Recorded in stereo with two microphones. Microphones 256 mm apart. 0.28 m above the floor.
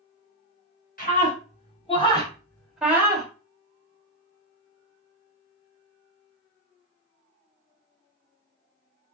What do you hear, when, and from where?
1.0 s a scream: 35° left (ahead or behind), 2.5 m; by 3.3 s 20° right (ahead or behind), 1.3 m